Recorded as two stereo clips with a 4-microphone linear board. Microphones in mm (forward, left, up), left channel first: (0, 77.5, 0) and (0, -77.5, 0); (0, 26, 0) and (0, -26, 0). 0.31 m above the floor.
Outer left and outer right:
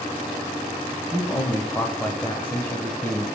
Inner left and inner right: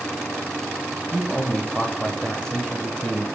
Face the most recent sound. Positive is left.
turn(degrees=10)  # may be behind; listen again after turning